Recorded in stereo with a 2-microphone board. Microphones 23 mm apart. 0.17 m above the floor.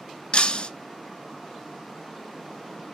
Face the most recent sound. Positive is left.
turn(degrees=50)  # may be behind; listen again after turning